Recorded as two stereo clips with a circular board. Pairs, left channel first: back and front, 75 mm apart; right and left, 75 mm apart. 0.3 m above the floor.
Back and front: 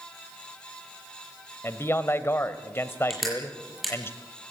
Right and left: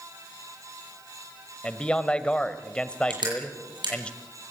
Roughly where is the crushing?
Left.